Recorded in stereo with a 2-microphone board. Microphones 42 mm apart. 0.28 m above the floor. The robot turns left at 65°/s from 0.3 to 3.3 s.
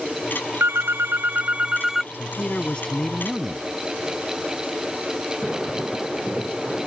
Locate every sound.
0.6 s a phone ringing: 80° right; by 2.0 s 175° right
2.1 s a man speaking: 70° left; by 3.6 s 5° right